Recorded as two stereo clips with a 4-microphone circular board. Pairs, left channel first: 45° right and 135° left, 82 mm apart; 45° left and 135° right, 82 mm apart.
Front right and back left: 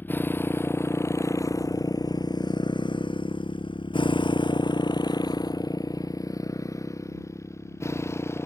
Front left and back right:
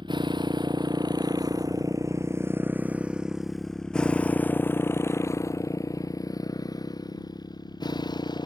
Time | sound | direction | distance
0.0 | a motorcycle | 110° right | ?